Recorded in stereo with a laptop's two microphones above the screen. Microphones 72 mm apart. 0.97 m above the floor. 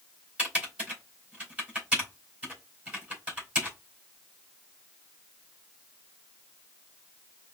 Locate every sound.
0.4 s typing on a keyboard: 20° right (ahead or behind), 3.5 m